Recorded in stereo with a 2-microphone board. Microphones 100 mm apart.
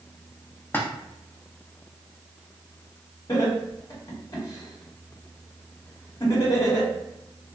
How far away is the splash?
About 0.5 m.